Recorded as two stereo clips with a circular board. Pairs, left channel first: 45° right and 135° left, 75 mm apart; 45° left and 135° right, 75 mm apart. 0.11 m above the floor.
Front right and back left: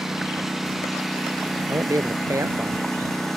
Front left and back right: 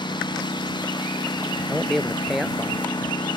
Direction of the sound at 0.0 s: 50° left.